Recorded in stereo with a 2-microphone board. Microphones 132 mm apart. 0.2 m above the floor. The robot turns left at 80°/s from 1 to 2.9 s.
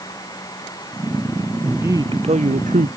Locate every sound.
1.6 s a man speaking: 5° right; by 2.9 s 100° right